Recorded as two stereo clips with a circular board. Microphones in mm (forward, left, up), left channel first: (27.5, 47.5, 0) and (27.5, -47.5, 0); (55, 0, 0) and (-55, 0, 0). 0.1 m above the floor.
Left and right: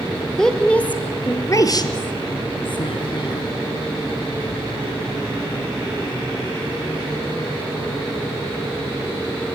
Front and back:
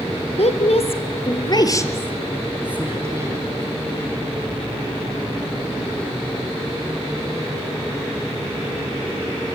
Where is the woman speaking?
5° left, 3 m; by 3.5 s 125° left, 3 m.